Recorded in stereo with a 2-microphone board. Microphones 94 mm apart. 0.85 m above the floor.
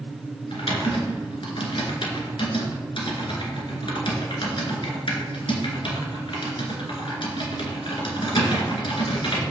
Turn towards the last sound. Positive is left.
turn(degrees=70)  # may be behind; listen again after turning